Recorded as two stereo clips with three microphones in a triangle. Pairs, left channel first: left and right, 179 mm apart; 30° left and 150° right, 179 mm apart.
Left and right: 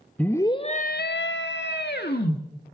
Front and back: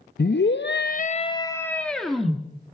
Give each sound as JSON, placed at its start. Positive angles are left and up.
{"t": 0.2, "sound": "a scream", "azimuth_deg": 10, "distance_m": 1.3}